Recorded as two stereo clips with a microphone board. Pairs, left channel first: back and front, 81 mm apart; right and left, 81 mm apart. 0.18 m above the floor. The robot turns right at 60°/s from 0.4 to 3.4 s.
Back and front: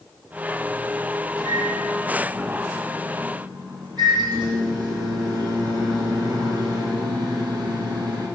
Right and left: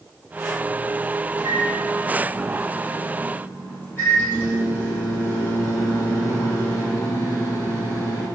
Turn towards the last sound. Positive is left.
turn(degrees=-30)